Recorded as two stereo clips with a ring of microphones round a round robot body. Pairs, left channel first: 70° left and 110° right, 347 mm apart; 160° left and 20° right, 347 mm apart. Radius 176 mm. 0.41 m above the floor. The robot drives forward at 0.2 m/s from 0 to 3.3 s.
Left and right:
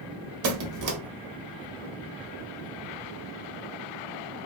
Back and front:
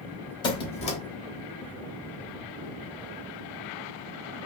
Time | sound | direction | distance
0.4 | a squeak | 130° right | 0.8 m